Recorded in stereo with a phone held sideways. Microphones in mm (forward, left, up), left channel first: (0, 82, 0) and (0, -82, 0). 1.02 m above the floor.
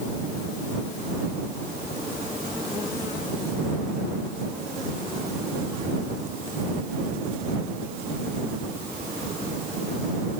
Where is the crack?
No crack in this recording.